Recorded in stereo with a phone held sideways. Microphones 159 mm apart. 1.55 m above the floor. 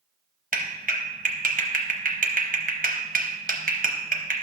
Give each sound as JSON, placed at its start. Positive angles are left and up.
{"t": 0.5, "sound": "a clap", "side_deg": -60, "distance_m": 0.9}